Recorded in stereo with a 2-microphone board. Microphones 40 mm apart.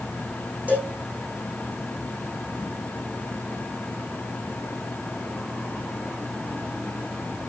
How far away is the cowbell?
About 9 m.